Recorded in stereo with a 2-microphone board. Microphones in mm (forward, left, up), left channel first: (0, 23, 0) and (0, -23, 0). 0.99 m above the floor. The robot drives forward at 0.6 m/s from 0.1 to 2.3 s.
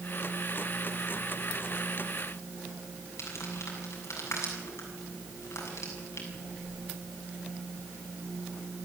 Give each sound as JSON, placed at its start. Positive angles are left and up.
{"t": 3.2, "sound": "crumpling", "side_deg": 75, "distance_m": 7.0}